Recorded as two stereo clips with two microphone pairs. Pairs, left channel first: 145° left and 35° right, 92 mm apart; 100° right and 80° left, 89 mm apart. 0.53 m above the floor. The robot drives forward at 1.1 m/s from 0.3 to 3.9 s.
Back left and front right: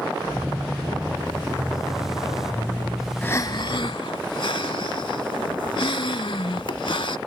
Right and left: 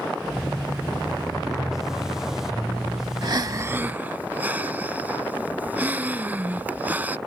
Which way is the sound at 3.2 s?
70° left.